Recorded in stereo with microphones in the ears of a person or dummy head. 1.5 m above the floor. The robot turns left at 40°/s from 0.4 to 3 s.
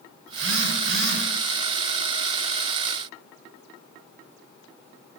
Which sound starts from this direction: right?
A phone buzzing, at 0.3 s.